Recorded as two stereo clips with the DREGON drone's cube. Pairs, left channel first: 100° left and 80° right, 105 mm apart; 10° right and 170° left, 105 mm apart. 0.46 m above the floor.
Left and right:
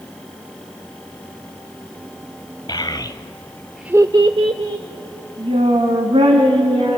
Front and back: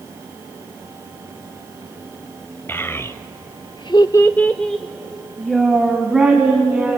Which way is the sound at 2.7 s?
55° left.